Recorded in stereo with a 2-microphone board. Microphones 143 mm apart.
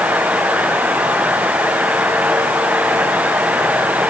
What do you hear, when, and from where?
Only background noise.